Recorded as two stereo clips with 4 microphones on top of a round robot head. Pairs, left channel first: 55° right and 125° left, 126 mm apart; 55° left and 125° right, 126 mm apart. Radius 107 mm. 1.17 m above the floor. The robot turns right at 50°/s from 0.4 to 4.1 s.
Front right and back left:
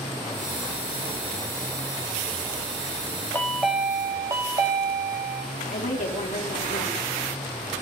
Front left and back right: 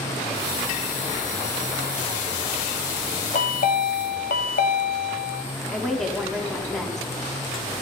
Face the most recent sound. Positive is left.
turn(degrees=-35)